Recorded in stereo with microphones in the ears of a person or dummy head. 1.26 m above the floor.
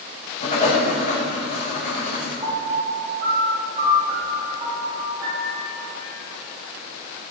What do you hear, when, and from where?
0.4 s writing: 45° left (ahead or behind), 7 m
2.4 s a piano: 30° right (ahead or behind), 6 m